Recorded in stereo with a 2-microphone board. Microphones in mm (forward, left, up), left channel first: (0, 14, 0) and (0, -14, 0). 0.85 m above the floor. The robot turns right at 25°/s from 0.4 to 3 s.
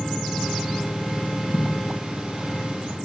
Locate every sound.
1.5 s a thud: 75° left (ahead or behind), 2.5 m; by 1.7 s 70° left (ahead or behind), 2.5 m